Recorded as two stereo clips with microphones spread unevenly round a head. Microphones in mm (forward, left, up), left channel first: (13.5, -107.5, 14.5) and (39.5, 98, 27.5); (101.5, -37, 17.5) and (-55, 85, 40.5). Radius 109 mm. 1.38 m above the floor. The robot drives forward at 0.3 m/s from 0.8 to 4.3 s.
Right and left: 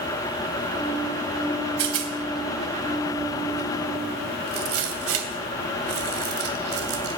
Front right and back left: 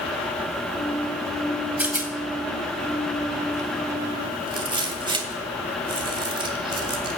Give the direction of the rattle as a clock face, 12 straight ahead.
10 o'clock.